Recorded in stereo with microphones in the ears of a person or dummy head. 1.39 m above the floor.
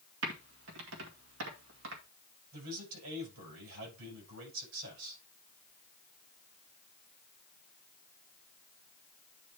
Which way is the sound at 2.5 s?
85° right.